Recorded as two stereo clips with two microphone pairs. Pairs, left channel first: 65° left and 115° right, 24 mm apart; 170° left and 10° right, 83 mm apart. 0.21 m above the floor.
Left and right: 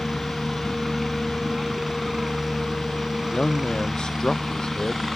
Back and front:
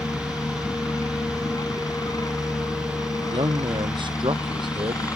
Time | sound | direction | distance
0.0 | a helicopter | 165° left | ?
3.2 | a man speaking | straight ahead | ?